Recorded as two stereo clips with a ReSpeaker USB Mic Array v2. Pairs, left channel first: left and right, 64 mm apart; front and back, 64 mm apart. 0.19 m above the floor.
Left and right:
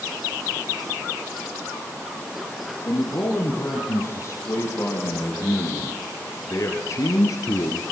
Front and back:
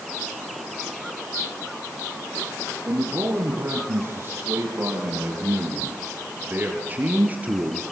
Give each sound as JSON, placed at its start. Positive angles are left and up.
{"t": 2.9, "sound": "a man speaking", "azimuth_deg": 130, "distance_m": 8.0}